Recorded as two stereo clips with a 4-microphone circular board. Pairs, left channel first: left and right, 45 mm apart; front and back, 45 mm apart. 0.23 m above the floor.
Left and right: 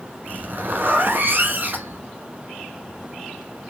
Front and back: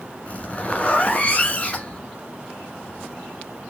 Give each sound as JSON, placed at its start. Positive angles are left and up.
{"t": 0.3, "sound": "a zipper", "azimuth_deg": -55, "distance_m": 1.0}